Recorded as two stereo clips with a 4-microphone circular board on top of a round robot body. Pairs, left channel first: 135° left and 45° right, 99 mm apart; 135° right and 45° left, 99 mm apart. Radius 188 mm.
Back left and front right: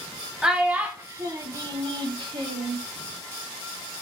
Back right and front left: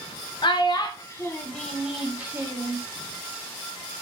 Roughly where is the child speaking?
Behind right.